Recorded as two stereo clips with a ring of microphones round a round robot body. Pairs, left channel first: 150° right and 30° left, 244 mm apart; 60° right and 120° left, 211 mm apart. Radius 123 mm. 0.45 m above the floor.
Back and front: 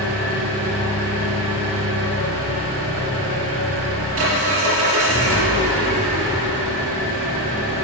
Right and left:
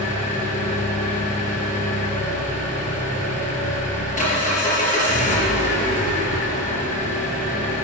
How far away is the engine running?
About 3.5 m.